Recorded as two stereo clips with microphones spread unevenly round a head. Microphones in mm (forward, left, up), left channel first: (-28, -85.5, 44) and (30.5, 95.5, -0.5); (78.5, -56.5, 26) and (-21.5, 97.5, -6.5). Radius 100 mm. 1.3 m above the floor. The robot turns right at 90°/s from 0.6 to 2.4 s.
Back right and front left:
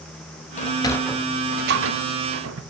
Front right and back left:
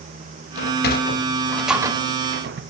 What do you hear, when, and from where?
0.6 s a sliding door: 70° right, 0.9 m; by 2.6 s 95° left, 0.9 m